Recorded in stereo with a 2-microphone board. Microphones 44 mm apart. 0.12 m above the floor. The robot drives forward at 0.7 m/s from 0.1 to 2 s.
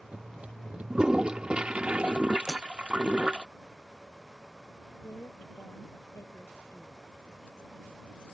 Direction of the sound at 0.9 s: 20° right (ahead or behind).